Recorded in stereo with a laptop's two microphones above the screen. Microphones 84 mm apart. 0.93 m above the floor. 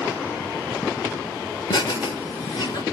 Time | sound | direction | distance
1.7 | laughter | 70° left (ahead or behind) | 3.5 m